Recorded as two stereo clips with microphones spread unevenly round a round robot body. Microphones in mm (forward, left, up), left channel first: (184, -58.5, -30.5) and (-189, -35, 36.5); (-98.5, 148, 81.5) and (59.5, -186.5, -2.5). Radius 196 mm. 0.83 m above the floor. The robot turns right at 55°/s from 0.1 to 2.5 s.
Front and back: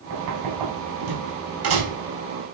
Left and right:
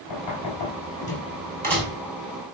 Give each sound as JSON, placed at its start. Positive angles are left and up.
{"t": 0.1, "sound": "knocking", "azimuth_deg": 115, "distance_m": 5.0}